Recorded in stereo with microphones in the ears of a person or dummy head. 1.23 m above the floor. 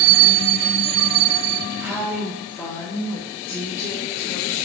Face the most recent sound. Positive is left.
turn(degrees=80)